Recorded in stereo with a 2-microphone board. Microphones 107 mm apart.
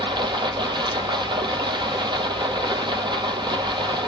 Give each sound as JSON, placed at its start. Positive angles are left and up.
{"t": 0.0, "sound": "running water", "side_deg": -50, "distance_m": 1.0}